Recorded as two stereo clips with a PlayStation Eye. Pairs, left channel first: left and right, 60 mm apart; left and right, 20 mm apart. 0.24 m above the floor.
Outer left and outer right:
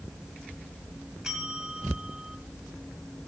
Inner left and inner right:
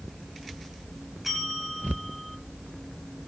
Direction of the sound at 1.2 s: 10° right (ahead or behind).